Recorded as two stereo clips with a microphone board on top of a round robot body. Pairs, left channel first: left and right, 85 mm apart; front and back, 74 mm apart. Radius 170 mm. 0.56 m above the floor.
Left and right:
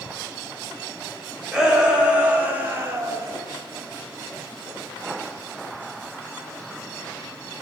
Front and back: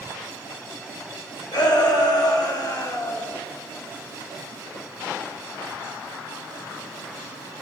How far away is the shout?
About 4 m.